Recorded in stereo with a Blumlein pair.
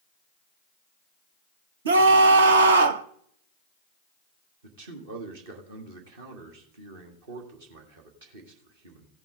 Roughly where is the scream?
Ahead right.